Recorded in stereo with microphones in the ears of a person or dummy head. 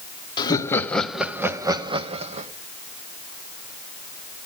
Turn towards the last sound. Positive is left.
turn(degrees=-35)  # may be behind; listen again after turning